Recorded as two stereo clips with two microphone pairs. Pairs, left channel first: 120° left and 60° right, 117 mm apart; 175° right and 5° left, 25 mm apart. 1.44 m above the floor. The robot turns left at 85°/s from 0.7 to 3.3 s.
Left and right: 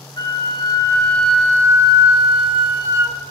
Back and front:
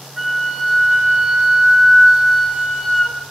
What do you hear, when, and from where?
0.2 s a flute: 80° left, 0.6 m; by 3.2 s 130° right, 0.6 m